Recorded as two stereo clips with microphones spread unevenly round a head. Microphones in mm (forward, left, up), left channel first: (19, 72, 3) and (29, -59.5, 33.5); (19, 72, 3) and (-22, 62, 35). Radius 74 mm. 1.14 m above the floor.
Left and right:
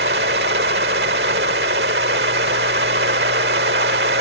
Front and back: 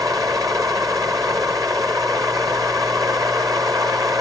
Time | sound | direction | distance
0.0 | a fan | 110° right | ?